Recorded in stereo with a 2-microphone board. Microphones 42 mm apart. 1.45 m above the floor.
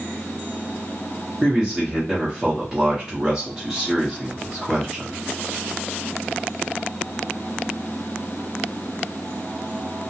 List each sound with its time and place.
1.4 s a man speaking: 20° right (ahead or behind), 0.8 m